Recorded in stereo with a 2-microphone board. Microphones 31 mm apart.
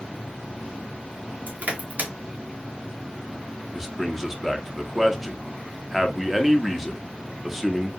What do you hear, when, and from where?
1.5 s crushing: 70° right (ahead or behind), 0.9 m
3.7 s a man speaking: 5° right (ahead or behind), 0.6 m